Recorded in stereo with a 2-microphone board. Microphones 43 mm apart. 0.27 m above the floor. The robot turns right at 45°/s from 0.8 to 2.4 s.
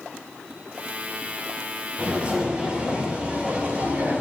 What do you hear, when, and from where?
2.0 s footsteps: 35° right (ahead or behind), 4.5 m; by 4.2 s 40° right (ahead or behind), 4 m